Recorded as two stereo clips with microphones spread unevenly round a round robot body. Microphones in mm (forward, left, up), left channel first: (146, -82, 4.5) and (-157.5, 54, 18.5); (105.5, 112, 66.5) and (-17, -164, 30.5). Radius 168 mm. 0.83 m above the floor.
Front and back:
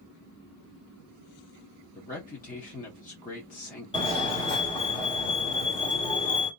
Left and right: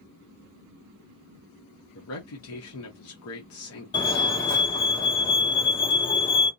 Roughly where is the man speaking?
Ahead left.